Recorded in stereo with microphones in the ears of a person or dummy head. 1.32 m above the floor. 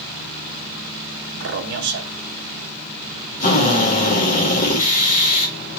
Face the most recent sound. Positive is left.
turn(degrees=40)  # may be behind; listen again after turning